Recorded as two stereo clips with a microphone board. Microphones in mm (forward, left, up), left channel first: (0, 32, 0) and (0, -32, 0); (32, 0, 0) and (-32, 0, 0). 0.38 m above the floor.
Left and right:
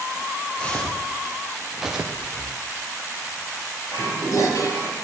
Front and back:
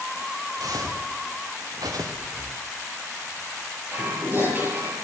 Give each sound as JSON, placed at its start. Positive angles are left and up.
{"t": 0.6, "sound": "footsteps", "azimuth_deg": 165, "distance_m": 2.5}
{"t": 2.1, "sound": "breathing", "azimuth_deg": 130, "distance_m": 2.0}
{"t": 3.9, "sound": "dishes clattering", "azimuth_deg": 120, "distance_m": 6.5}